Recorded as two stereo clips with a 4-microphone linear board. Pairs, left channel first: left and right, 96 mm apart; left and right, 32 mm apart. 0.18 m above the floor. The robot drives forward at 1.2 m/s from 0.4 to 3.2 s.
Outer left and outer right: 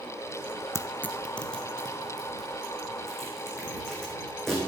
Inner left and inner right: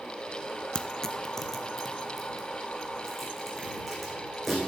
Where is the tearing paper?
30° left (ahead or behind), 0.5 m; by 4.6 s 5° left (ahead or behind), 3.5 m.